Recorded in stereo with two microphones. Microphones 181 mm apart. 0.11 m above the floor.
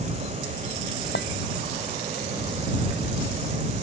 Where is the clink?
80° left.